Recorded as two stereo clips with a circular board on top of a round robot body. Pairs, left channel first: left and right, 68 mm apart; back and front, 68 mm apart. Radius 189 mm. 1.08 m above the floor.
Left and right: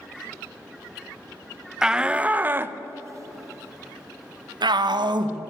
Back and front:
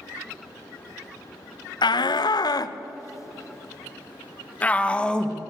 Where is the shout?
170° right, 1.2 m; by 5.4 s 100° right, 1.8 m.